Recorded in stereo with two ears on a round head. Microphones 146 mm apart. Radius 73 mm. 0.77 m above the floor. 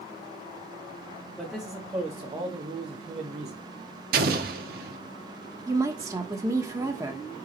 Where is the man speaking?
5° right (ahead or behind), 1.7 m; by 3.6 s 45° right (ahead or behind), 1.5 m.